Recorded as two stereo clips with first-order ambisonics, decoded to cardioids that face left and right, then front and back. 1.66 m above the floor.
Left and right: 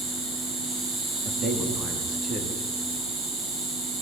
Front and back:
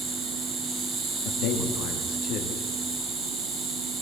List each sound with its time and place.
0.0 s an insect: 120° right, 8.5 m
1.2 s a man speaking: 25° right, 4.5 m